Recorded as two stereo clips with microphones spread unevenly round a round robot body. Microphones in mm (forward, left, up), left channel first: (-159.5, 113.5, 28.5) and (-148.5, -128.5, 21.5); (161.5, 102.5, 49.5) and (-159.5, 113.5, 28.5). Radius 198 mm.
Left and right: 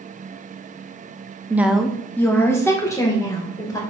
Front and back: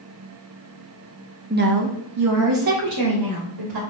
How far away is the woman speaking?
About 0.8 m.